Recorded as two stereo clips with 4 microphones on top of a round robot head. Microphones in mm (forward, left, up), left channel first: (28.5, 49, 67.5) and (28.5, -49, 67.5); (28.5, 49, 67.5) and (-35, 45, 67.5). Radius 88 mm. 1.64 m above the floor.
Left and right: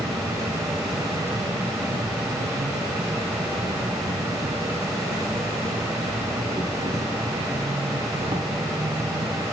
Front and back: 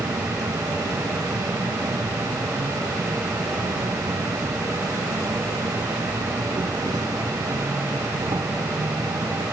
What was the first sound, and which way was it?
An insect, 150° right.